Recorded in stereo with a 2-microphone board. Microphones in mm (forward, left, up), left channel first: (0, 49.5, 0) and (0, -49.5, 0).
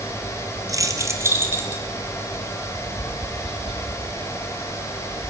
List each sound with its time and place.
0.7 s keys jangling: 35° right (ahead or behind), 2.5 m; by 1.8 s 20° right (ahead or behind), 4 m
2.7 s tapping: 70° right (ahead or behind), 8 m